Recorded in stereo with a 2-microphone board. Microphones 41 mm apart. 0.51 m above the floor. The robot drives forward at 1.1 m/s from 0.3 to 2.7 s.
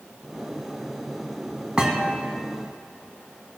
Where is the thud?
20° right (ahead or behind), 1.3 m; by 2.2 s 30° right (ahead or behind), 0.9 m.